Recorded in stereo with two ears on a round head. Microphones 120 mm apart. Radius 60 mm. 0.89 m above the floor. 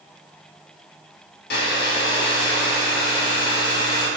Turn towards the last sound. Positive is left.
turn(degrees=85)